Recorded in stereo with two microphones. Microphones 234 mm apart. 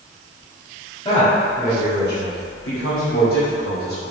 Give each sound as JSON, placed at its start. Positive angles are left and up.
{"t": 1.1, "sound": "a man speaking", "side_deg": 20, "distance_m": 1.5}